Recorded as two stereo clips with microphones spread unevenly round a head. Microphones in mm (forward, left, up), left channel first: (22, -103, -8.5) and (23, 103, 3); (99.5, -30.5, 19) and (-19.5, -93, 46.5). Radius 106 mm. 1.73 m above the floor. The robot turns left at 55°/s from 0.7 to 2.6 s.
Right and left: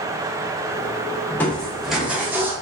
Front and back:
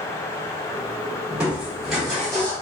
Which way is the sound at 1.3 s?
160° right.